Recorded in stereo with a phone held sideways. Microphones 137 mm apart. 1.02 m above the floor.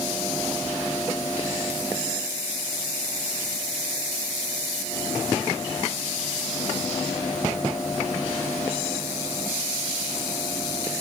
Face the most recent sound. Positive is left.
No sound to turn to.